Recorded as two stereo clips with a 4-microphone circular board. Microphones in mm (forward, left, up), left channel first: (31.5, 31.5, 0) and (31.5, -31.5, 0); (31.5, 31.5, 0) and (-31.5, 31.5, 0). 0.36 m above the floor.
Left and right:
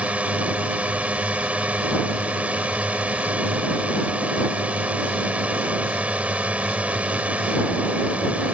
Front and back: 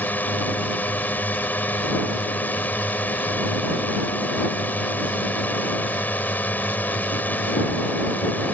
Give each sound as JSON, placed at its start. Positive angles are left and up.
{"t": 0.0, "sound": "a drone", "azimuth_deg": -35}